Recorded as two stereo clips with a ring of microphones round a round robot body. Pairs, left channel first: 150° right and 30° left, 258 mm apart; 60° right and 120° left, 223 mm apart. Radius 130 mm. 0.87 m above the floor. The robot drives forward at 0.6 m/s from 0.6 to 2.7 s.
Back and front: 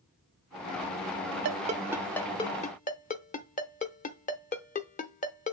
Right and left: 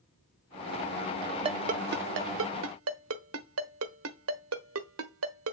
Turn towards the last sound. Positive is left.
turn(degrees=150)